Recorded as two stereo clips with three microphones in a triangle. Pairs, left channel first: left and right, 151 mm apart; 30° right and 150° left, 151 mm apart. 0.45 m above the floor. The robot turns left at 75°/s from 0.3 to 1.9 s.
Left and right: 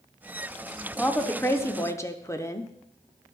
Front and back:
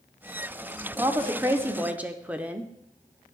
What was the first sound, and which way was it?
A woman speaking, 160° left.